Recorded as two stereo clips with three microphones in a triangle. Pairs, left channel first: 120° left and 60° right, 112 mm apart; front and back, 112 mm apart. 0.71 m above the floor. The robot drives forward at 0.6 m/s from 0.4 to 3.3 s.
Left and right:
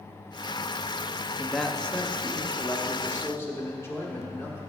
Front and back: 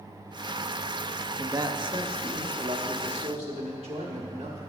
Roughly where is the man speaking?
Behind right.